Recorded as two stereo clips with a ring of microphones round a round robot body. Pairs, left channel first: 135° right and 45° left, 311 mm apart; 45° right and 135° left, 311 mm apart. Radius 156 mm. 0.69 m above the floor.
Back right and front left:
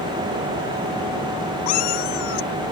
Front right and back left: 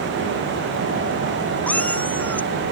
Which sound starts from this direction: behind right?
A cat meowing, at 1.7 s.